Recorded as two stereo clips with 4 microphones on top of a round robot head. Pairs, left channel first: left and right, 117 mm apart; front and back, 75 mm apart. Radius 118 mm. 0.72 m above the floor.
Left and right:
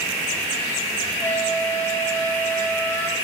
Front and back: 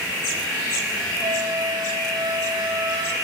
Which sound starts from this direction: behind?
A flute, at 1.2 s.